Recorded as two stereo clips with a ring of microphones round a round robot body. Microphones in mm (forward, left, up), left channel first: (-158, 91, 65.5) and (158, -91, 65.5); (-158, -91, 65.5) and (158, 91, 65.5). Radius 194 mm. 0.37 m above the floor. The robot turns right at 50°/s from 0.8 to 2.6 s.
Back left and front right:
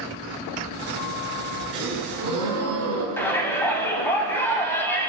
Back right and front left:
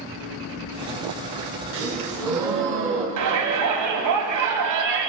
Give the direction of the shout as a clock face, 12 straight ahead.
10 o'clock.